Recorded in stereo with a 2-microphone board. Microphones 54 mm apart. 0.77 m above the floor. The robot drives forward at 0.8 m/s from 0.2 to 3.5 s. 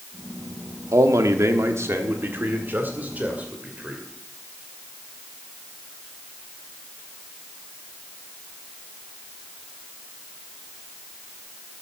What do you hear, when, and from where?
0.9 s a man speaking: 70° right (ahead or behind), 1.2 m; by 4.0 s 30° right (ahead or behind), 2.5 m